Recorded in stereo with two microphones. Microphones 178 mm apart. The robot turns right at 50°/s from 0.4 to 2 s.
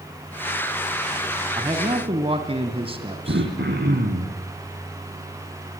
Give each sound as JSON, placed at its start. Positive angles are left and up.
{"t": 1.6, "sound": "a man speaking", "side_deg": -25, "distance_m": 1.7}
{"t": 3.3, "sound": "throat clearing", "side_deg": -75, "distance_m": 4.0}